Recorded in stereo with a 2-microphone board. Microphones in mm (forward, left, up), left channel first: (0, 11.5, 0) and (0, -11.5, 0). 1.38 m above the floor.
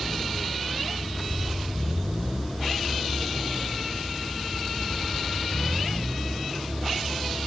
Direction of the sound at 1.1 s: 5° left (ahead or behind).